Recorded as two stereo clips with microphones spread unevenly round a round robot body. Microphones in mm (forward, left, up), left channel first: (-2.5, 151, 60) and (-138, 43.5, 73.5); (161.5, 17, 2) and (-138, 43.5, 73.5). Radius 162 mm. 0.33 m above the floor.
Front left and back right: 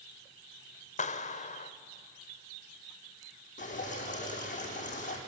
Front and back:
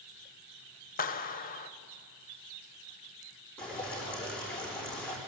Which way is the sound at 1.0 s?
25° left.